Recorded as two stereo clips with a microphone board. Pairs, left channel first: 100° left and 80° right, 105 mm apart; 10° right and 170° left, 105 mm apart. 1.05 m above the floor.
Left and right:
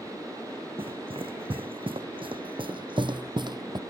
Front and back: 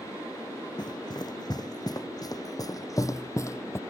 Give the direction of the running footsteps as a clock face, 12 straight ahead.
2 o'clock.